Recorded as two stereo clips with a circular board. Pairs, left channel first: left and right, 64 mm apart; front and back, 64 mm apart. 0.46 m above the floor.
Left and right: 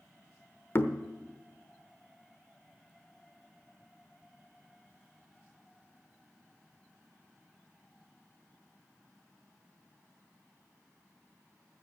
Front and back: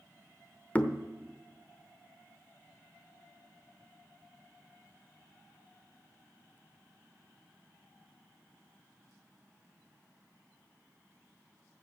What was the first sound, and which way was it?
Knocking, 55° left.